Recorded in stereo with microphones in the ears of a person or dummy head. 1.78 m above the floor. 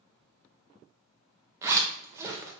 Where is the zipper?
20° right (ahead or behind), 0.7 m.